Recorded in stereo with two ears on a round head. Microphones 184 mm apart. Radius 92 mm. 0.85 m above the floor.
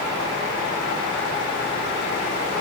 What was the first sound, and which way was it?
Only background noise.